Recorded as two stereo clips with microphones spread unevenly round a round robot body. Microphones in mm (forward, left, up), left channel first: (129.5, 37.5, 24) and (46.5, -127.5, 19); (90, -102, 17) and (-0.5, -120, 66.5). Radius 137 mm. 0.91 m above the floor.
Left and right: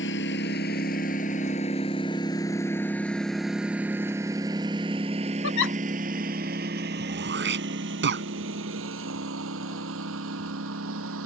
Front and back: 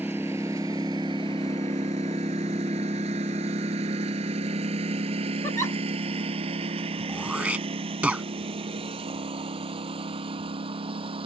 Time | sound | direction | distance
0.0 | a lawn mower | 115° left | ?
5.4 | a giggle | 70° left | ?
7.1 | throat clearing | 95° right | ?